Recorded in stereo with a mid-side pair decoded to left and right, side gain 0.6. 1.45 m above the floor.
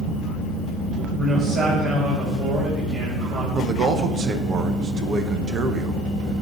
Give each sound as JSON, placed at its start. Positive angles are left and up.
{"t": 1.2, "sound": "a man speaking", "azimuth_deg": -35, "distance_m": 5.0}
{"t": 3.5, "sound": "a man speaking", "azimuth_deg": -40, "distance_m": 1.0}